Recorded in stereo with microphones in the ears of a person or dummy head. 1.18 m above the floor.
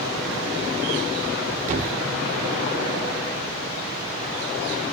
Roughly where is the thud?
Right.